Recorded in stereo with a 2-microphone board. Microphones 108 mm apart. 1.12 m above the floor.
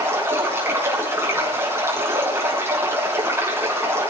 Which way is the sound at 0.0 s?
20° right (ahead or behind).